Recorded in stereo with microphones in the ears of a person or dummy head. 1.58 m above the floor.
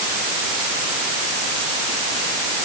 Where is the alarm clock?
No alarm clock in this recording.